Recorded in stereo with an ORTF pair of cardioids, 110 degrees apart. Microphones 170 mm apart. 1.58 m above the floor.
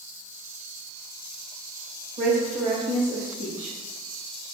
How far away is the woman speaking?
About 1.9 m.